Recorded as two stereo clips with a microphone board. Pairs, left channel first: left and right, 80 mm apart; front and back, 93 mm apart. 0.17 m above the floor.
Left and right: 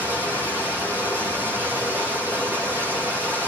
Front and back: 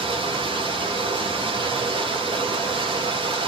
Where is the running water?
155° right, 8 m.